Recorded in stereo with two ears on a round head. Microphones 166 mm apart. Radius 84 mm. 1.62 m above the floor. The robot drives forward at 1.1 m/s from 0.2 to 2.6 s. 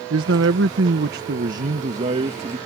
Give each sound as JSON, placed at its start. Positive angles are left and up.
{"t": 0.1, "sound": "a man speaking", "side_deg": -75}